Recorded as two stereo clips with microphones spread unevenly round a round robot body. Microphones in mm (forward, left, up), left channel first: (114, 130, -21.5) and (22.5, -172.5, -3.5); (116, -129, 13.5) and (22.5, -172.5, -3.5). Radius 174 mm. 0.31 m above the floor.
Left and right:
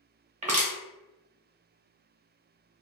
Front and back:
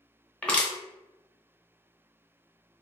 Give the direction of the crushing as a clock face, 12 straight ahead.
2 o'clock.